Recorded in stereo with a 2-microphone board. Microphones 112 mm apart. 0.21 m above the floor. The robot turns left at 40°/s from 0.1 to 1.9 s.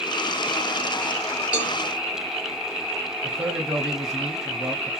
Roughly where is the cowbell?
Centre.